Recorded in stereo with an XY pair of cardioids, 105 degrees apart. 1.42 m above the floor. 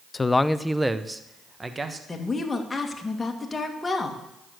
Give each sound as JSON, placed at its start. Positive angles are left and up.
{"t": 0.1, "sound": "a man speaking", "azimuth_deg": 25, "distance_m": 0.5}
{"t": 2.1, "sound": "a woman speaking", "azimuth_deg": 20, "distance_m": 2.0}